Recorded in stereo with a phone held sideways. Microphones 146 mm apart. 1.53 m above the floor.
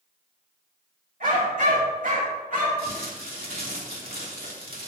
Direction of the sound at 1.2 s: 65° right (ahead or behind).